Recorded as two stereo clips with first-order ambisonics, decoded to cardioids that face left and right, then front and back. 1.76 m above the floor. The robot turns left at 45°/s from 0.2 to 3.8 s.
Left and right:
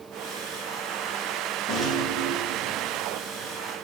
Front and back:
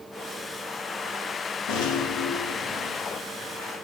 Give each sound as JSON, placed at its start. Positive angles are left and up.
{"t": 1.7, "sound": "a rattle", "azimuth_deg": 5, "distance_m": 3.5}